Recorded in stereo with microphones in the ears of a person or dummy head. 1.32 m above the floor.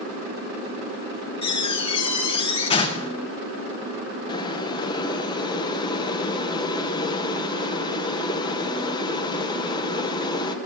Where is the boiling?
20° left (ahead or behind), 0.9 m.